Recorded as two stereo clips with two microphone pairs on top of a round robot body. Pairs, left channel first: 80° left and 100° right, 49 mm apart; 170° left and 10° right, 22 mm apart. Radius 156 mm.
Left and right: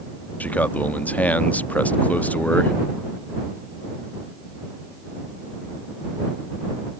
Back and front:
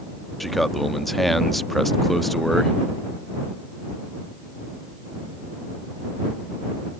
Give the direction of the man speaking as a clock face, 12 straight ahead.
9 o'clock.